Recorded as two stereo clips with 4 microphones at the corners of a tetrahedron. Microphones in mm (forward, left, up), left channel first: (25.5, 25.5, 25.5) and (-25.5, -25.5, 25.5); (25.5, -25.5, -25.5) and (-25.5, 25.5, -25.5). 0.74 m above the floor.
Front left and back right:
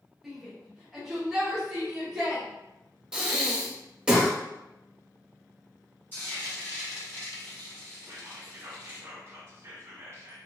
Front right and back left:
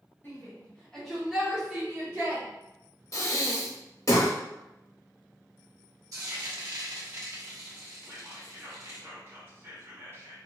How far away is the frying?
About 1.0 m.